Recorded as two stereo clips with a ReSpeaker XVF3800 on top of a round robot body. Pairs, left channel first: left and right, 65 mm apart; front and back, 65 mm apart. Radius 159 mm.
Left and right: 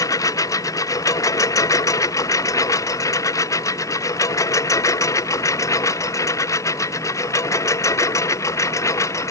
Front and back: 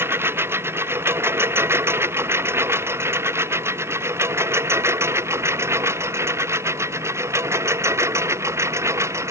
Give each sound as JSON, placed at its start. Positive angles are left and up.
{"t": 0.0, "sound": "a lawn mower", "azimuth_deg": 125}